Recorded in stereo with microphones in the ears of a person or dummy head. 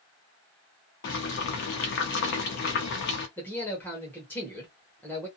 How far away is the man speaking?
About 1.0 m.